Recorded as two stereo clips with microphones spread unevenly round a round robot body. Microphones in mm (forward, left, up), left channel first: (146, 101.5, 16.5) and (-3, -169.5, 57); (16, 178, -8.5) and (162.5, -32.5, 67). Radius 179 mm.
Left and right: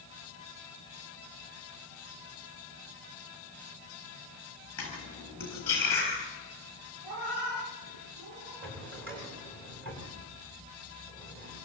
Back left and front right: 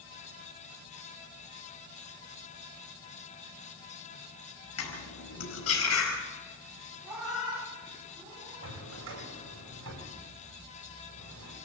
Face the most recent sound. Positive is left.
turn(degrees=-70)